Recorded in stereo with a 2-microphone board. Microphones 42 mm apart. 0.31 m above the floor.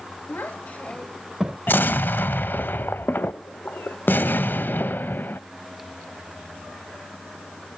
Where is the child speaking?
55° left (ahead or behind), 1.4 m; by 1.6 s 30° right (ahead or behind), 0.9 m.